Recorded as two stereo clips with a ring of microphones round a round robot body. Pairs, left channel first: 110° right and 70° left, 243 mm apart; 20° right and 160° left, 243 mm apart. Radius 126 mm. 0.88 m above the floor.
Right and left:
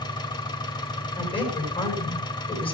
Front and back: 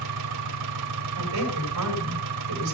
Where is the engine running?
175° left, 1.5 m.